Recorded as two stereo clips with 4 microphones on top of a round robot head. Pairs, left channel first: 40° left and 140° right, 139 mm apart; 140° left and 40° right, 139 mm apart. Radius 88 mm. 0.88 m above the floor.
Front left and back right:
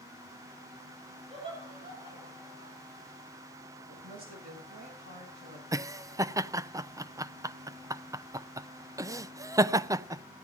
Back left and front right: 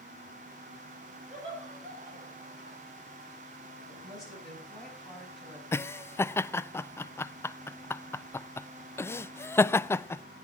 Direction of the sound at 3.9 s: 130° right.